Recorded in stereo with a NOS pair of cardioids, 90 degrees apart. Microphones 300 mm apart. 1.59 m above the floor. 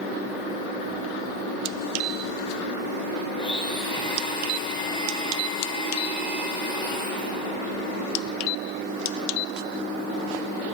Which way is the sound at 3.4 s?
15° left.